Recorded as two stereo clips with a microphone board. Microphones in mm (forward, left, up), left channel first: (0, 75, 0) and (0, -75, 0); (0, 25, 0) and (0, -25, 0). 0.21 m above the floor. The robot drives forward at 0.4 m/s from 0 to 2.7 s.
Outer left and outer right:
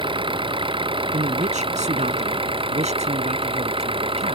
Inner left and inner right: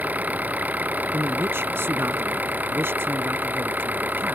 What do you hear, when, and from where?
0.0 s an engine running: 35° right (ahead or behind)
1.1 s a man speaking: 55° right (ahead or behind); by 4.4 s 50° right (ahead or behind)